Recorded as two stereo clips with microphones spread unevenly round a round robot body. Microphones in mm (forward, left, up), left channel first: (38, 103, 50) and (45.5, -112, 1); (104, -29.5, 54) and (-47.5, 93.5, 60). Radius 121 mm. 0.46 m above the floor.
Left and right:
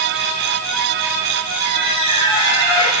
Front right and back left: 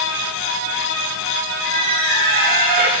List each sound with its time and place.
1.6 s a squeak: 100° left, 8 m